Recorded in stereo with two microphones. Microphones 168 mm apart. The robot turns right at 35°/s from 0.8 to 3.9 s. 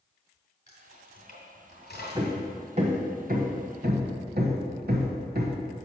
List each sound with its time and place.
0.7 s keys jangling: 45° left (ahead or behind), 3 m; by 2.4 s 80° left, 3 m
2.1 s hammering: 20° right (ahead or behind), 1.0 m; by 5.6 s 70° right (ahead or behind), 1.0 m